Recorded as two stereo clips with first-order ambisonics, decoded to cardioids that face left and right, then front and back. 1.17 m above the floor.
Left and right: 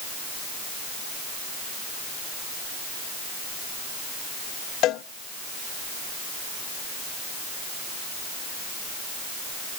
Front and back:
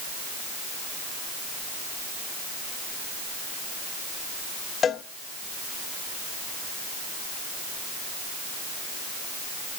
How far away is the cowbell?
About 0.6 m.